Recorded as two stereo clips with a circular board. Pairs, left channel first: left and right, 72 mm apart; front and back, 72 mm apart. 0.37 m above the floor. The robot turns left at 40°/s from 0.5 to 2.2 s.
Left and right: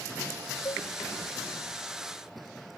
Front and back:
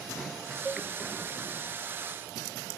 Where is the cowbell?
110° left; by 0.9 s 100° left.